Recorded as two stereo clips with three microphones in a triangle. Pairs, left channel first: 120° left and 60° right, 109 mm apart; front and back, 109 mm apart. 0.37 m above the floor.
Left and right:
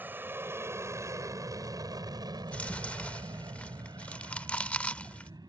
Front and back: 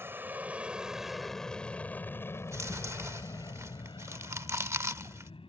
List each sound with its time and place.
0.0 s an aircraft: 125° right; by 5.5 s 15° right
2.4 s chewing: straight behind